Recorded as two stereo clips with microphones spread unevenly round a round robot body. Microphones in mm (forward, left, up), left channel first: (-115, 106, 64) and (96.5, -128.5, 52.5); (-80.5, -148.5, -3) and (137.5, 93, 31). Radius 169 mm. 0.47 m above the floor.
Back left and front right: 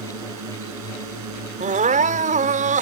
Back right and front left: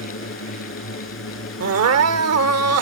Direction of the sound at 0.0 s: 80° right.